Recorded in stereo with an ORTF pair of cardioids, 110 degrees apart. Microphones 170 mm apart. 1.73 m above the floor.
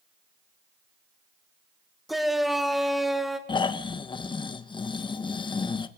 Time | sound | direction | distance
2.1 | a shout | straight ahead | 3 m
3.5 | snoring | 30° left | 1.7 m